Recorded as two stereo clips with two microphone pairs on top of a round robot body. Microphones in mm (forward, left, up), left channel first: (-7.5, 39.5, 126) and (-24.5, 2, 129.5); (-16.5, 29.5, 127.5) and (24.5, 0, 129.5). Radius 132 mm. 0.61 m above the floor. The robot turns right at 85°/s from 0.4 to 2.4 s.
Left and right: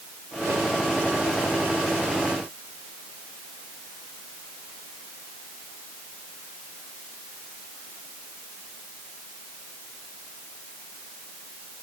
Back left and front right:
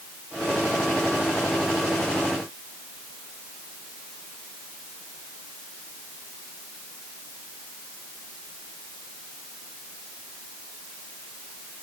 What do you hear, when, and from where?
Only background noise.